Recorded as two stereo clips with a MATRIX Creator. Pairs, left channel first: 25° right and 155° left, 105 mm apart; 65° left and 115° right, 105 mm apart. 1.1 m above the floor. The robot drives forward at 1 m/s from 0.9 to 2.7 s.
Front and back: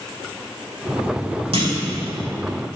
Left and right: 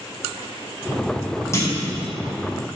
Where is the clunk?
130° left, 2.5 m; by 1.9 s 135° left, 3 m.